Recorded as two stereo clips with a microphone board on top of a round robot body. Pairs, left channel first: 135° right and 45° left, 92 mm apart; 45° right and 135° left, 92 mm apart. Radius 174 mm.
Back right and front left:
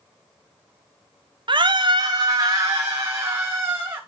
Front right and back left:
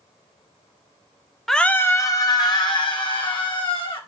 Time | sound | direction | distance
1.5 | a scream | 40° left | 0.7 m